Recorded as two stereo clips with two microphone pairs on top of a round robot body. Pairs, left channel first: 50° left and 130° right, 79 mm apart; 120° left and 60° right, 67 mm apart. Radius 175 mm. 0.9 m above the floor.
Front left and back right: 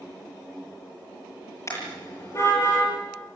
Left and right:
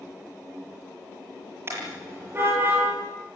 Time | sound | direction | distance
1.7 | a car horn | 5° right | 9.5 m